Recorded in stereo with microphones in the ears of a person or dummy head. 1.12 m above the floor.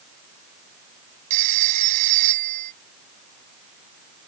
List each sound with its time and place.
1.3 s a phone ringing: 40° right (ahead or behind)